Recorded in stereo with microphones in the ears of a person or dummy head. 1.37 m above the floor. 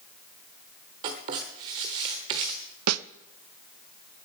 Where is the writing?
20° right (ahead or behind), 1.1 m.